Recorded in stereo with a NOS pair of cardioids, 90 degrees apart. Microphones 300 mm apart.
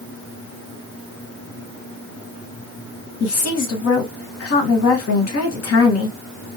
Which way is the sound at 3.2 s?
50° left.